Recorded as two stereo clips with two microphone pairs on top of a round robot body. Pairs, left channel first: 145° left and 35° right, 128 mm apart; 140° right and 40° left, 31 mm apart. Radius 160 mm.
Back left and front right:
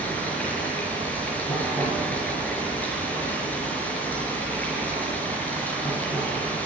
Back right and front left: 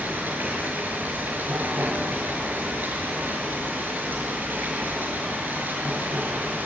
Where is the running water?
65° left, 5.5 m.